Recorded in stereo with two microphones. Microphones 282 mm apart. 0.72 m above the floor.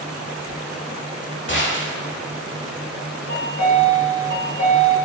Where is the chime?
40° left (ahead or behind), 2 m.